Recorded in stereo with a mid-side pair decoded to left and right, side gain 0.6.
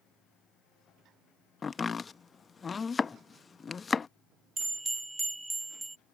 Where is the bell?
10° right.